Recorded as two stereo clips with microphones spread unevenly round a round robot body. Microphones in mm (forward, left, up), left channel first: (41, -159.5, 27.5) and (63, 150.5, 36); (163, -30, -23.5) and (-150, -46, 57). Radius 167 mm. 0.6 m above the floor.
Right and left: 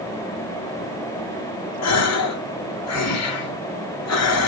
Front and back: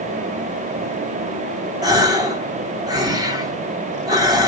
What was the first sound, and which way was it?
A gasp, 90° right.